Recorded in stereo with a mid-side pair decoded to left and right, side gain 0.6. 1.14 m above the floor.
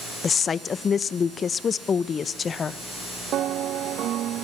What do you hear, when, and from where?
0.2 s a woman speaking: 35° left, 0.7 m